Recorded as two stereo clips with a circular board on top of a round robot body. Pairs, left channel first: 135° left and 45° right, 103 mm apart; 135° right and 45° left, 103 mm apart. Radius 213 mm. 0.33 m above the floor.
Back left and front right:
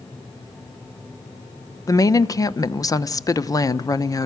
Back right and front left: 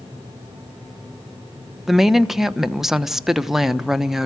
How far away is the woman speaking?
About 1.1 m.